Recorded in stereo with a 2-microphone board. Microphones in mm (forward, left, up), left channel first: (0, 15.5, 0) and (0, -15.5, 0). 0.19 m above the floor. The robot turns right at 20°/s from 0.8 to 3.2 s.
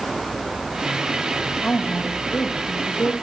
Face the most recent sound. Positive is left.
turn(degrees=85)